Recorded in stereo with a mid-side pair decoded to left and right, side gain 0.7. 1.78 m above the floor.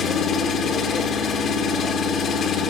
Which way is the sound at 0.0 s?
45° left.